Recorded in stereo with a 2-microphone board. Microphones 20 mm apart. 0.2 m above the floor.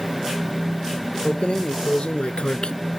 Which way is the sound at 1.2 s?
65° left (ahead or behind).